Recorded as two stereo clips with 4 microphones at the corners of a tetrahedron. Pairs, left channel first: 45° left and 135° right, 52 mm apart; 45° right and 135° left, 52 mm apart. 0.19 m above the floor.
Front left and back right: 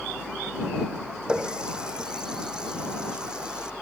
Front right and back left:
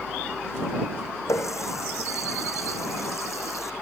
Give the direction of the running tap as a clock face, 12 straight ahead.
2 o'clock.